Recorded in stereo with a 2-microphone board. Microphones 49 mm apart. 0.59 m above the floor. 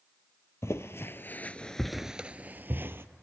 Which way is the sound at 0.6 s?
60° left (ahead or behind).